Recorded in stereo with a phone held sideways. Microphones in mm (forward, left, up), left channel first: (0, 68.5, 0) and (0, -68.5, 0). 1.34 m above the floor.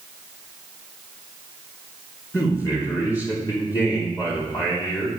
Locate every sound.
2.3 s a man speaking: 25° left (ahead or behind), 3 m